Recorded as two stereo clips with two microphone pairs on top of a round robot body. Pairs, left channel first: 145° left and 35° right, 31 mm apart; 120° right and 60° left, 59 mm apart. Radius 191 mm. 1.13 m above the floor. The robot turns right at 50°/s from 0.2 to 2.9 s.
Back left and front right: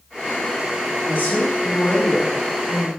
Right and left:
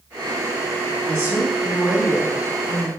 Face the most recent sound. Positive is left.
turn(degrees=-165)